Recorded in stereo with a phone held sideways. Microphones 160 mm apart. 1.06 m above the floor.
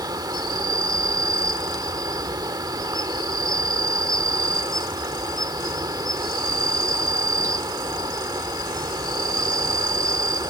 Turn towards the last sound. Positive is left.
turn(degrees=-25)  # may be behind; listen again after turning